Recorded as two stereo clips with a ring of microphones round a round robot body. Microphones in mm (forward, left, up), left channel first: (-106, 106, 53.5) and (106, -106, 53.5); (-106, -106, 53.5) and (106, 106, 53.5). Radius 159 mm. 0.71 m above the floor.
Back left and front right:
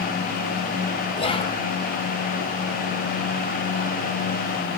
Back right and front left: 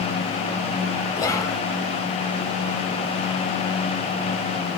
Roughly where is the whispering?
Behind.